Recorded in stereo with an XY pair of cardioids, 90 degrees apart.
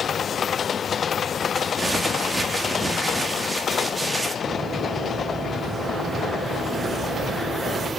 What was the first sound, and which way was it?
Crumpling, 20° right.